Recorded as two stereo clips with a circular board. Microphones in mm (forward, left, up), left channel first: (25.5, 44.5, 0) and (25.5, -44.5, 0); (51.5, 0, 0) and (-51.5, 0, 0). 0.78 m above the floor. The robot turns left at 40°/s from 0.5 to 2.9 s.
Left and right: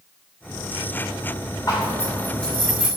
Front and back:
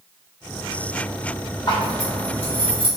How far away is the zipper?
About 2.5 m.